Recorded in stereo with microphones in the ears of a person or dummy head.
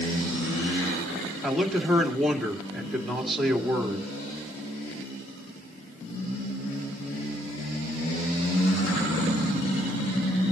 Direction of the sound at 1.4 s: Centre (ahead or behind).